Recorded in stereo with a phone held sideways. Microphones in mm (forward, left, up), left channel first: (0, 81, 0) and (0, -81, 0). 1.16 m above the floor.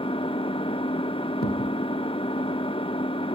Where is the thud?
70° left (ahead or behind), 2 m.